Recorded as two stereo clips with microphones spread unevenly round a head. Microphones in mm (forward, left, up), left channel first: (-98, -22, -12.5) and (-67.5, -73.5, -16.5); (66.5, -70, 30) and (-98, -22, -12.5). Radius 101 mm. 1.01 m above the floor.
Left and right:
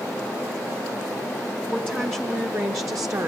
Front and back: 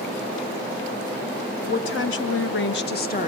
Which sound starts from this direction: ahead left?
A woman speaking, at 1.6 s.